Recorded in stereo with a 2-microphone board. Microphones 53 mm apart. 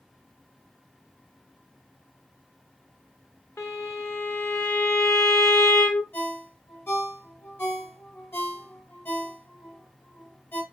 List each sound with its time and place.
3.6 s a violin: 70° left (ahead or behind), 1.4 m
6.1 s a ringtone: 50° left (ahead or behind), 1.6 m